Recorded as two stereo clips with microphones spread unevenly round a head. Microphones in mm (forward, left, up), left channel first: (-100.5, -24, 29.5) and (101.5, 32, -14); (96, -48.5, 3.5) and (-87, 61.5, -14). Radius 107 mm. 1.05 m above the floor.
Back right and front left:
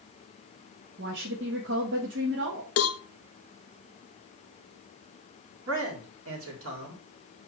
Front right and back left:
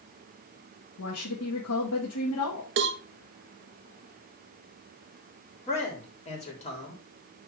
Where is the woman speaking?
15° right, 1.5 m.